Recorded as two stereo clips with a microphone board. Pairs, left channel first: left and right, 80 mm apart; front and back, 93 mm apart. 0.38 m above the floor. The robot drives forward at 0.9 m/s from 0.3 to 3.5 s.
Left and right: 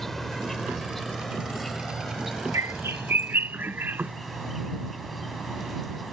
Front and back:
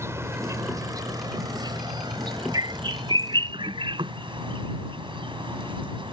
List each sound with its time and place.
0.0 s an insect: 175° left; by 6.1 s straight behind
2.5 s a bird: 140° right; by 4.1 s 155° right